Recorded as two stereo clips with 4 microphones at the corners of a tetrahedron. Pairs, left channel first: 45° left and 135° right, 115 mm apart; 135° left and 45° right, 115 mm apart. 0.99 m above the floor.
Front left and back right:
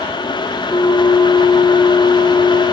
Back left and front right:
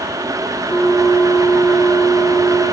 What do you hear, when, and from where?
0.7 s a bell: 90° left, 1.9 m